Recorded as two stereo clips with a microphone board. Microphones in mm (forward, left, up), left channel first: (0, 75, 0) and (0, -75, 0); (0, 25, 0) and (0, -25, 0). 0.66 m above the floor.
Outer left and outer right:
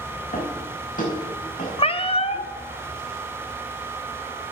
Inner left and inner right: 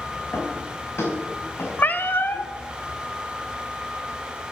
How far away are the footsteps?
About 5.5 m.